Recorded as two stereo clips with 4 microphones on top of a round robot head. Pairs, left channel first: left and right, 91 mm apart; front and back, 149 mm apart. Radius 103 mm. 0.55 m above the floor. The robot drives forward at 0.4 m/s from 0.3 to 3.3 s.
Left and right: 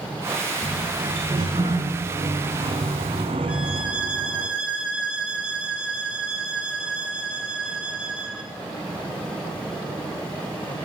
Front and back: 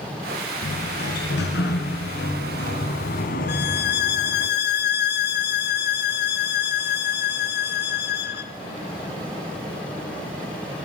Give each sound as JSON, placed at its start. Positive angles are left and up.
{"t": 0.6, "sound": "a sliding door", "azimuth_deg": -20, "distance_m": 2.0}
{"t": 3.5, "sound": "a violin", "azimuth_deg": -5, "distance_m": 0.8}